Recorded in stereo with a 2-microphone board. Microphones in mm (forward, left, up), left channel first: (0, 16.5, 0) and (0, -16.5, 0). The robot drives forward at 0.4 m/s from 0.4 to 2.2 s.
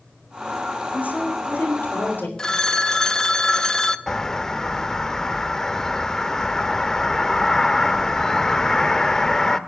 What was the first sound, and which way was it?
A woman speaking, 70° left (ahead or behind).